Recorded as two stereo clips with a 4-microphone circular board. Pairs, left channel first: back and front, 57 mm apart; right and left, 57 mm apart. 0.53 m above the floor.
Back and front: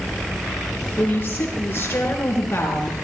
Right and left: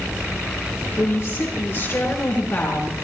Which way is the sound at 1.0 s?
125° right.